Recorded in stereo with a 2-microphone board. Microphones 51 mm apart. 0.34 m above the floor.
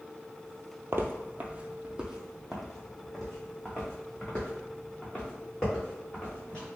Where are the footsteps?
55° right (ahead or behind), 0.5 m; by 6.6 s 20° left (ahead or behind), 3 m.